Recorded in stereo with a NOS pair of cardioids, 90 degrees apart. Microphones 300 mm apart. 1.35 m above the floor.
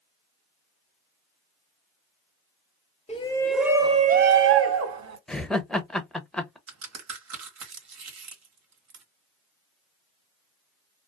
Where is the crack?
60° right, 1.3 m.